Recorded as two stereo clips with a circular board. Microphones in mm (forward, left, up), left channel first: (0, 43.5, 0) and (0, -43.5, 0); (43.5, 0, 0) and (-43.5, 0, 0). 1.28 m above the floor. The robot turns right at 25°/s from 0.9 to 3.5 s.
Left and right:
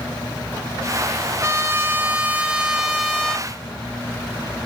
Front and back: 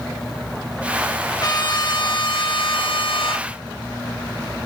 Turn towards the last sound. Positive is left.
turn(degrees=10)